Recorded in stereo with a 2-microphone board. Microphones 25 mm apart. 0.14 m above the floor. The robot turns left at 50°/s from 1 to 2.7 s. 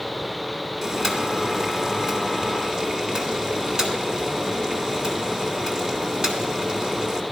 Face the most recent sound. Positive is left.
turn(degrees=-25)  # may be behind; listen again after turning